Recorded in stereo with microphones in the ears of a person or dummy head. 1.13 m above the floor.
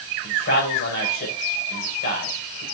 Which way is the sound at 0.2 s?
55° left (ahead or behind).